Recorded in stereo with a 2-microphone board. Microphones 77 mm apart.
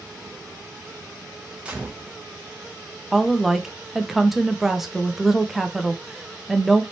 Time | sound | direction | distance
1.6 | a gunshot | 15° right (ahead or behind) | 1.1 m
3.1 | a woman speaking | 5° right (ahead or behind) | 0.8 m